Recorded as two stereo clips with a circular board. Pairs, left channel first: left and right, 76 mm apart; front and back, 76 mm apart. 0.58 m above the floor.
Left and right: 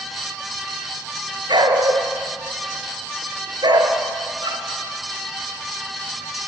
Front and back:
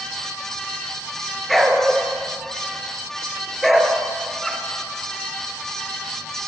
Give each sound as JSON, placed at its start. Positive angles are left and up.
{"t": 1.5, "sound": "a dog barking", "azimuth_deg": -90, "distance_m": 2.0}